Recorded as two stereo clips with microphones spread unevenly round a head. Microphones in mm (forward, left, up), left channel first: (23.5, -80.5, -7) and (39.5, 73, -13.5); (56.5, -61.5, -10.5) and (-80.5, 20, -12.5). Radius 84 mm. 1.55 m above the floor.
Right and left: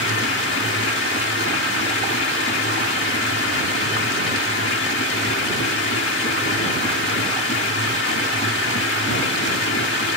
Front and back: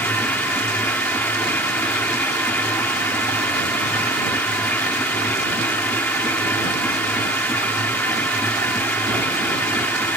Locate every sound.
0.0 s a machine running: 110° right